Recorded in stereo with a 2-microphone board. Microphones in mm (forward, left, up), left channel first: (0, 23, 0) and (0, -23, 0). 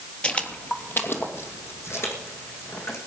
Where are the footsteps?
20° left (ahead or behind), 1.5 m; by 3.0 s 70° left (ahead or behind), 4 m.